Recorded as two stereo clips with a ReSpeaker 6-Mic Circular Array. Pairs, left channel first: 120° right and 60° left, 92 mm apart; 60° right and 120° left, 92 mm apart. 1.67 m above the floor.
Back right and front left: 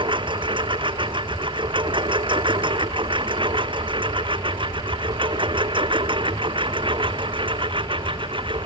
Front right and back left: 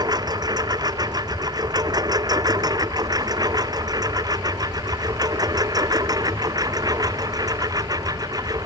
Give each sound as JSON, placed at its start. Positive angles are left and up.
{"t": 0.0, "sound": "a lawn mower", "azimuth_deg": 80}